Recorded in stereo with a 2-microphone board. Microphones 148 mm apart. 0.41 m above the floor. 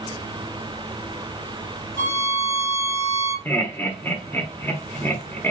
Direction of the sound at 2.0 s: 75° left (ahead or behind).